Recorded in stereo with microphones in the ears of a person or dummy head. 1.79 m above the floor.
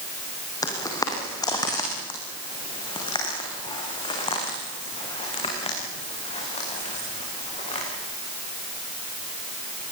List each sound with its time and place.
0.6 s footsteps: 15° left (ahead or behind), 4 m; by 7.8 s 30° left (ahead or behind), 10 m